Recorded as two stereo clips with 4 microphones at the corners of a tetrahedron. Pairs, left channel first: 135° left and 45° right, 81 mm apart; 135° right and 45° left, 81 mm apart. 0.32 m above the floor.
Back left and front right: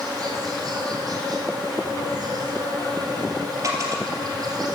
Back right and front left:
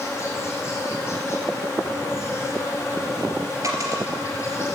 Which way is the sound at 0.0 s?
80° right.